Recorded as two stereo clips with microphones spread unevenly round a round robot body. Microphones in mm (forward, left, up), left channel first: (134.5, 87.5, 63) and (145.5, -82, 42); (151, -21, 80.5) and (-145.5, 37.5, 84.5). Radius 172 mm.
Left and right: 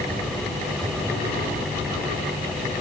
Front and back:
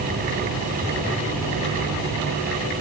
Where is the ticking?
No ticking in this recording.